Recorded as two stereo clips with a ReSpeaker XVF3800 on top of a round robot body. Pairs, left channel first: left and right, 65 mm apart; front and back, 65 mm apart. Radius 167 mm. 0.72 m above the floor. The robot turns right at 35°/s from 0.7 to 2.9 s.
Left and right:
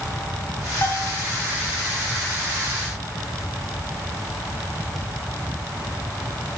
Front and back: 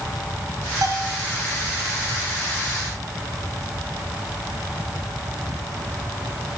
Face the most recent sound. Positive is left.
turn(degrees=-140)